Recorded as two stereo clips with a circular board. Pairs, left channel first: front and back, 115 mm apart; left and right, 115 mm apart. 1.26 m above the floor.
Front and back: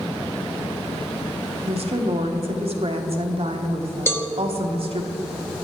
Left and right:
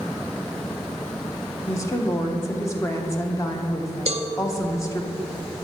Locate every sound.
1.7 s a woman speaking: 155° left, 0.9 m
4.1 s a cowbell: 75° right, 0.7 m